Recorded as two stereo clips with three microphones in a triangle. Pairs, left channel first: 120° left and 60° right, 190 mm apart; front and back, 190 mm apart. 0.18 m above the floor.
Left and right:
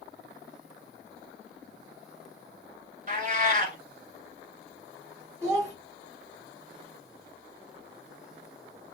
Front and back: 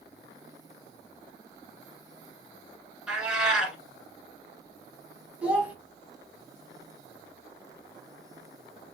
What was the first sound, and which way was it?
A cat meowing, 95° right.